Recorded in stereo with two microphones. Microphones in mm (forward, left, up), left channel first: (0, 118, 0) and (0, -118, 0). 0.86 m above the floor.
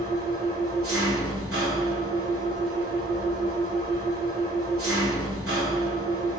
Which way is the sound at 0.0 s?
70° right (ahead or behind).